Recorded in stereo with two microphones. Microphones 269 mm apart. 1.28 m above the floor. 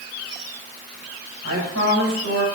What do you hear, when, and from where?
1.4 s a woman speaking: 80° right, 6.5 m